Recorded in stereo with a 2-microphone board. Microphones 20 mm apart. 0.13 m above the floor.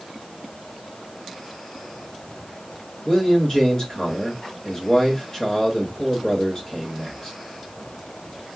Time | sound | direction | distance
3.0 | a man speaking | 30° left (ahead or behind) | 2 m